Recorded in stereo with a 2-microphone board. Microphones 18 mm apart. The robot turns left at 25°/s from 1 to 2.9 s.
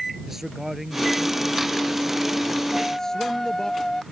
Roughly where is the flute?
Centre.